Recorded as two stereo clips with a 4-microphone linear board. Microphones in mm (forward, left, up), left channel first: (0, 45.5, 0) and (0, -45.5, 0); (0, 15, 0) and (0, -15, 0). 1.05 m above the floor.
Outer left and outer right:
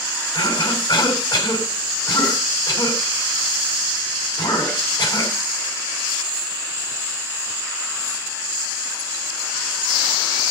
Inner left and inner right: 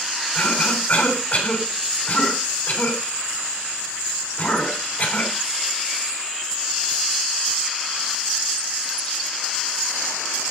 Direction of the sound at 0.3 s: 45° left (ahead or behind).